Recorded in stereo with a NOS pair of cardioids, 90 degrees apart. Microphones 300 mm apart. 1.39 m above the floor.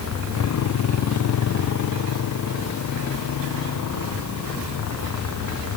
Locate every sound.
0.0 s a motorcycle: 65° left